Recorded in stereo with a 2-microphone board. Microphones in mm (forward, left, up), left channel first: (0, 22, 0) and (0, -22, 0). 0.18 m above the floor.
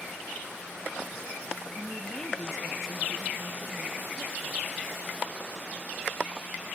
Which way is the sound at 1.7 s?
30° left (ahead or behind).